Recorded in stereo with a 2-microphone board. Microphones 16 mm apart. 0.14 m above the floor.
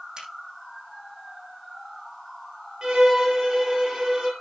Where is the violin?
45° right (ahead or behind), 4 m.